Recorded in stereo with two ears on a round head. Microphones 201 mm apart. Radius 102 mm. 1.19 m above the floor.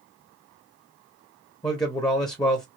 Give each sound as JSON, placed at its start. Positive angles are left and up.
{"t": 1.6, "sound": "a man speaking", "side_deg": 20, "distance_m": 0.7}